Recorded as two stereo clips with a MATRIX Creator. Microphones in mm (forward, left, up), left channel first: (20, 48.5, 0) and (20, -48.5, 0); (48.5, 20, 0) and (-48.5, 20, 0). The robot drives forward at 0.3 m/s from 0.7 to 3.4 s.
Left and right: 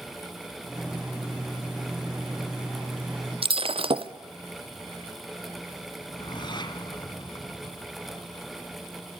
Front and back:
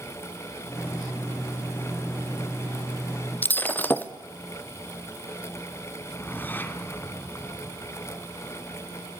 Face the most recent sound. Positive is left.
turn(degrees=65)